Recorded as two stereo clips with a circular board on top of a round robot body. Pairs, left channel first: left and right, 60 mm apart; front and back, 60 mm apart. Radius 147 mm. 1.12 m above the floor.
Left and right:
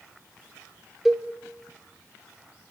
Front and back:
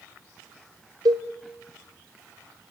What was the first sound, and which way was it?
A cowbell, 175° right.